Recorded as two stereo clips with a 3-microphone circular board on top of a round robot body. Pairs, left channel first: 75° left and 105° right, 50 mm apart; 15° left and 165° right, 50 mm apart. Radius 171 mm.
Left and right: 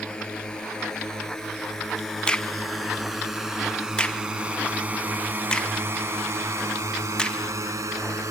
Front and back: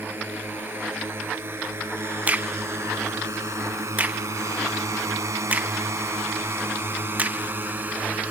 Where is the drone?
150° left; by 8.3 s 105° right.